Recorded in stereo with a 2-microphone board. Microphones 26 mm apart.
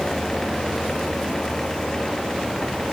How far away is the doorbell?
No doorbell in this recording.